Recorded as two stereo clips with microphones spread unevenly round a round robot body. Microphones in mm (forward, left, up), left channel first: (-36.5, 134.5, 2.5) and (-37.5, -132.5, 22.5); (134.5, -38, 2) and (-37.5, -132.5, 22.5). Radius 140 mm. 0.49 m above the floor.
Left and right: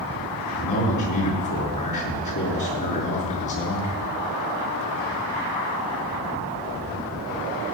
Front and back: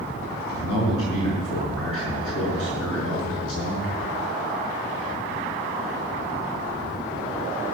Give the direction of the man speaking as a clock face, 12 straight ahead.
10 o'clock.